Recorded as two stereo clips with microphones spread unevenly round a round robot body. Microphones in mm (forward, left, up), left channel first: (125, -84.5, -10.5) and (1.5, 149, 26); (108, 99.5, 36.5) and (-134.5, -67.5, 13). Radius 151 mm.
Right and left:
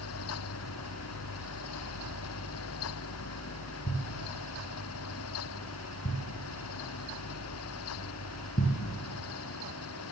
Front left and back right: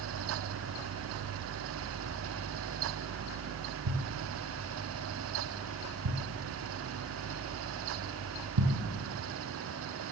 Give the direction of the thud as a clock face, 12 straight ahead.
4 o'clock.